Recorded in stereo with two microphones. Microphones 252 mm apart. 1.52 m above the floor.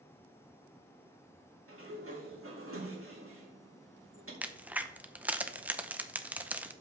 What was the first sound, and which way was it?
A sliding door, 60° right (ahead or behind).